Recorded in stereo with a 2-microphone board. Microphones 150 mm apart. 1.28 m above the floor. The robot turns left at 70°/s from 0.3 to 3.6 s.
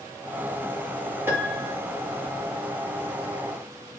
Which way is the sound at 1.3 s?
15° right.